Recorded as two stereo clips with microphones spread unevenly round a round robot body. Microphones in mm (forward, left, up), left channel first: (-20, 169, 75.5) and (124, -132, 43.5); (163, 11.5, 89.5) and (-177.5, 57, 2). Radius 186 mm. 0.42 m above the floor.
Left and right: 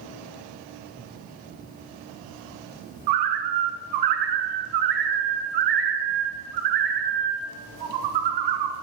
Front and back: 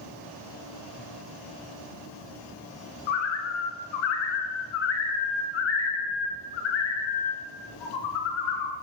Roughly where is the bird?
Ahead right.